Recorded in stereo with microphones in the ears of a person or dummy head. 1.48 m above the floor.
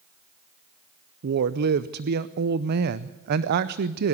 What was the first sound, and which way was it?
A woman speaking, 55° right (ahead or behind).